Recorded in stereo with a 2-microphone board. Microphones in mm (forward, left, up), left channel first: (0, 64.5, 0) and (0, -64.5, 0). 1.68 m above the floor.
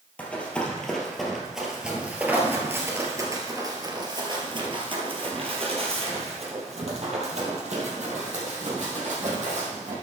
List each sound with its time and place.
0.2 s running footsteps: 10° left (ahead or behind), 2.5 m; by 9.9 s 70° right (ahead or behind), 4.5 m